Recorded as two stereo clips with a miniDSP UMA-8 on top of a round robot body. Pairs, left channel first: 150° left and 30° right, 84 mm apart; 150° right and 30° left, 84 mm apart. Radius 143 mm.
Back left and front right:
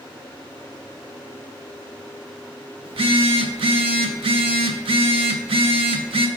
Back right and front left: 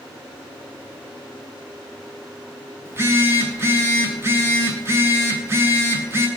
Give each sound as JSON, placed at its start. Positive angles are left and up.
{"t": 2.9, "sound": "a phone buzzing", "azimuth_deg": -30, "distance_m": 1.1}